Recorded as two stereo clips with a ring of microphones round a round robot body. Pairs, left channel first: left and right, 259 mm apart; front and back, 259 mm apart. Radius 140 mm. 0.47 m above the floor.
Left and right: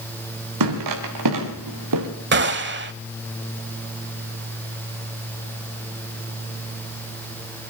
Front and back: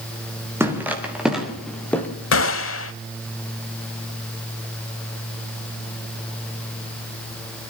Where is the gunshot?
40° right, 0.9 m.